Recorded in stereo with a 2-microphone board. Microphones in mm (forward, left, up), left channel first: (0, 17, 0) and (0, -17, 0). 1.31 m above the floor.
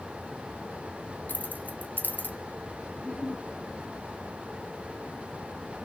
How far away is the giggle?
About 6 m.